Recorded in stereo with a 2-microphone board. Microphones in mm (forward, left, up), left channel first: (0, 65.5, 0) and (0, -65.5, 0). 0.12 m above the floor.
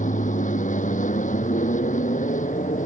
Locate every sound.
0.0 s an aircraft: 70° left (ahead or behind)